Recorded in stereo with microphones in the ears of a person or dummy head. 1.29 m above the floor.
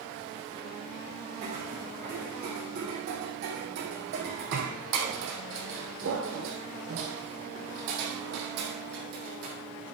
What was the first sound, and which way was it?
Footsteps, 40° right (ahead or behind).